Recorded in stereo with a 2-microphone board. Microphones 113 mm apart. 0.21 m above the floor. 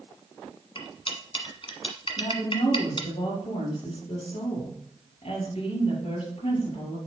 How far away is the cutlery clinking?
About 1.3 m.